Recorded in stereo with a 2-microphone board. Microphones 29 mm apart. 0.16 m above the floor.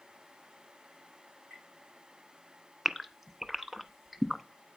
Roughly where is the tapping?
Right.